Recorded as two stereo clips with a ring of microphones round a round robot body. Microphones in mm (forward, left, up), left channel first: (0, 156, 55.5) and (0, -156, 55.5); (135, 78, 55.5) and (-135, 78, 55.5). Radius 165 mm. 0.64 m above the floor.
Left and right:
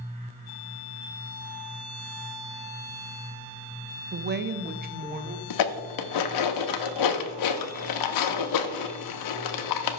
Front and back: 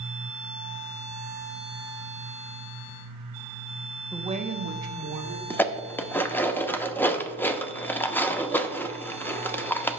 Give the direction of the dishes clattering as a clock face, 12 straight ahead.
9 o'clock.